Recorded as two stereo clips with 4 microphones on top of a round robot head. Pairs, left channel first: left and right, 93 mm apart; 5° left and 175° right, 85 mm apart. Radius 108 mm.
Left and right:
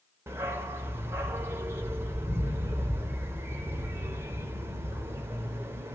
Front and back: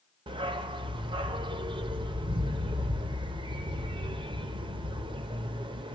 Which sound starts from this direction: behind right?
A dog barking, at 0.3 s.